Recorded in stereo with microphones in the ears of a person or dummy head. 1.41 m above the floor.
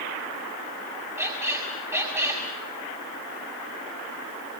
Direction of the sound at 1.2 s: 10° right (ahead or behind).